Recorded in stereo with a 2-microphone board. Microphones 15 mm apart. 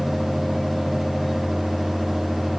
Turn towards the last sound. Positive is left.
No sound to turn to.